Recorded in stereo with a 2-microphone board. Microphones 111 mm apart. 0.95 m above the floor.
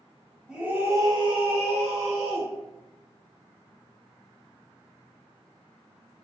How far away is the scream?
About 0.8 m.